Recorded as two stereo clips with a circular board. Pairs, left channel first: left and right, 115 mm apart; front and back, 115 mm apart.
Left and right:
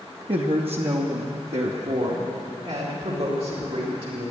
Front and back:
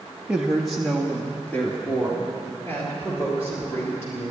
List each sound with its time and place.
0.3 s a woman speaking: 100° right, 0.8 m; by 4.3 s 65° right, 3.5 m